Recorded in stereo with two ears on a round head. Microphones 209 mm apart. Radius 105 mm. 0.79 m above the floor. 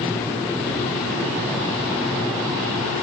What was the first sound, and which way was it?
Only background noise.